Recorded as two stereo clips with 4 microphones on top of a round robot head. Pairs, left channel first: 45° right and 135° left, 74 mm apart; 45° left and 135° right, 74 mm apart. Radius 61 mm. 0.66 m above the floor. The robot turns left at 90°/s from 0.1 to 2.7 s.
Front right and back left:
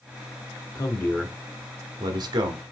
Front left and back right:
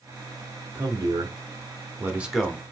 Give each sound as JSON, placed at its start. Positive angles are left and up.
{"t": 0.8, "sound": "a man speaking", "azimuth_deg": -80, "distance_m": 1.2}